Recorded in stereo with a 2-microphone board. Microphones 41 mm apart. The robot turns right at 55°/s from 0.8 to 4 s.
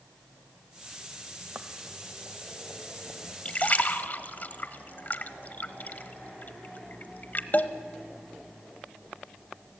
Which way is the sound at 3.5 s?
30° left (ahead or behind).